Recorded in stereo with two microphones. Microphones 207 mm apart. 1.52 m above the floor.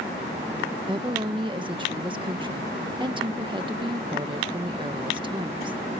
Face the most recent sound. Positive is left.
turn(degrees=-25)  # may be behind; listen again after turning